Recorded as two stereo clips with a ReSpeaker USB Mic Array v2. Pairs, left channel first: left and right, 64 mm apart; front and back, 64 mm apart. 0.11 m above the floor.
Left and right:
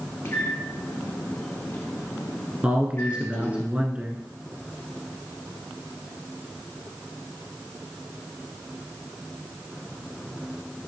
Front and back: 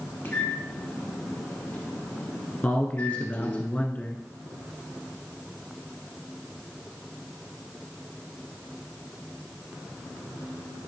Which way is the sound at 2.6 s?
40° right.